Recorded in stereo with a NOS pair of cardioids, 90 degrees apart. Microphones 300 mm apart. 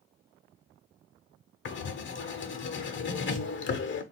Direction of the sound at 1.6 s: 40° left.